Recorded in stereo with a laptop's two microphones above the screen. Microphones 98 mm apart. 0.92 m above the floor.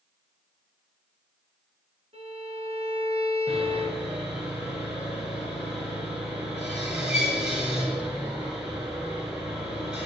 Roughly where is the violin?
Right.